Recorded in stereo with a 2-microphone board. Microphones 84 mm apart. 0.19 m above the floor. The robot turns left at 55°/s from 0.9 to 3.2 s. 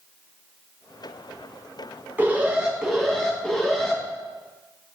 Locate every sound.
2.2 s an alarm: 135° right, 1.9 m; by 4.0 s 170° left, 1.9 m